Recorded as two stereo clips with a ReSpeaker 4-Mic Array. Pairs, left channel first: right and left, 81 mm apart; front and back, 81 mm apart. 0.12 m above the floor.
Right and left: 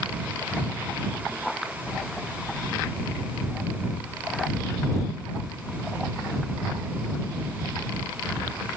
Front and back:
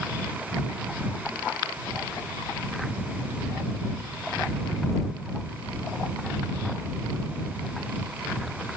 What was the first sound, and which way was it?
Only background noise.